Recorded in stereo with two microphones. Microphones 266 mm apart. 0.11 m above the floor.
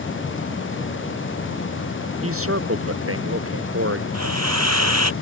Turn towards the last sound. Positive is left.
turn(degrees=-80)